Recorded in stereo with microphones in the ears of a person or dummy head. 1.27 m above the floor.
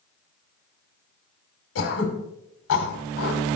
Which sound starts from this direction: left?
Throat clearing, at 1.8 s.